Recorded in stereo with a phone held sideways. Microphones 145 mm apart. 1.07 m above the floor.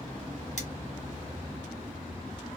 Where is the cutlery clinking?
55° left (ahead or behind), 1.4 m.